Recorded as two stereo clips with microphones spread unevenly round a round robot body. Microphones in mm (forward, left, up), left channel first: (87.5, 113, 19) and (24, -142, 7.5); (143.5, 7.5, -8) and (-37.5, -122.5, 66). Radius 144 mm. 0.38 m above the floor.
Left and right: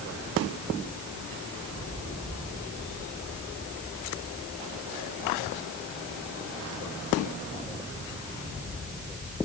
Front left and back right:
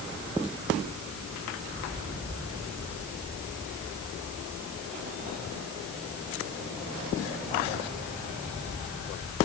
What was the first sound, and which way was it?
Only background noise.